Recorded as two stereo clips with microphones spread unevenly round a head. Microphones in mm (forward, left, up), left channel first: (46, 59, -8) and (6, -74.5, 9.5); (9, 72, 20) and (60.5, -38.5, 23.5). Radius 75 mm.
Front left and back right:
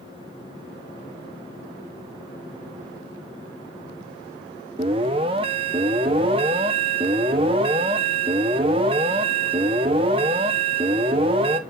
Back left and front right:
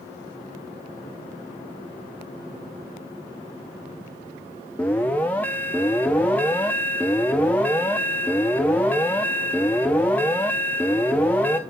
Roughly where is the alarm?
Behind.